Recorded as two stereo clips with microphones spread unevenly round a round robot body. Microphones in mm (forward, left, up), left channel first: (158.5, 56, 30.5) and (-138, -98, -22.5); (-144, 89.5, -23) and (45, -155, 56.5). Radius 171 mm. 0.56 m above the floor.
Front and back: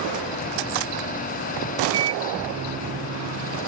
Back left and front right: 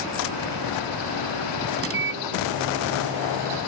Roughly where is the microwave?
Right.